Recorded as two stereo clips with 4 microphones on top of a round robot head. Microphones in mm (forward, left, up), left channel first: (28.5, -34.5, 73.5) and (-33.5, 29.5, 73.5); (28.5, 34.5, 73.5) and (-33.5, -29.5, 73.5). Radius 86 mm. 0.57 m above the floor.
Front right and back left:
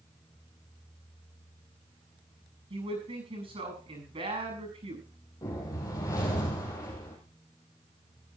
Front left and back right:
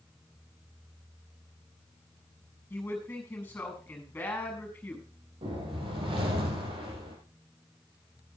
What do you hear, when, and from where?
2.7 s a man speaking: 120° left, 7.5 m
5.4 s a whoosh: 100° right, 4 m